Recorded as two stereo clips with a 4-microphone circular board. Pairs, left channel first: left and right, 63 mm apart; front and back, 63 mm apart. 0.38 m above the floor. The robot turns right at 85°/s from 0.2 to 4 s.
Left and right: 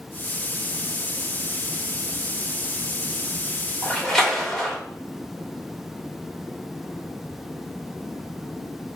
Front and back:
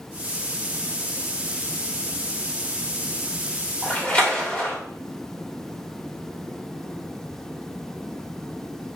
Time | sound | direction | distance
3.8 | a splash | 5° left | 1.2 m